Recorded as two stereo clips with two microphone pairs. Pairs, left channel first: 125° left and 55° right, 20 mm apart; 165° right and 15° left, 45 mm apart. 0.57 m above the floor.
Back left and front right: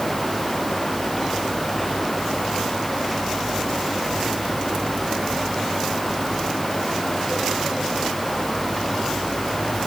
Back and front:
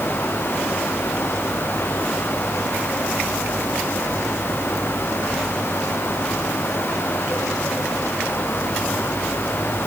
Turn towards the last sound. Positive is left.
No sound to turn to.